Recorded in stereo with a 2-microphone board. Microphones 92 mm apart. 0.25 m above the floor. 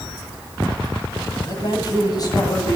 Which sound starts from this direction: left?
A man speaking, at 1.4 s.